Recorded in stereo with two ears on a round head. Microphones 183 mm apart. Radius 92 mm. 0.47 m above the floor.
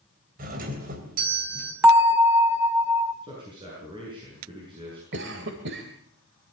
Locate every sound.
0.4 s a doorbell: 45° right (ahead or behind), 3.5 m
1.8 s a bell: 10° right (ahead or behind), 2 m
3.2 s a man speaking: 25° right (ahead or behind), 7.5 m
5.1 s a cough: 65° right (ahead or behind), 2 m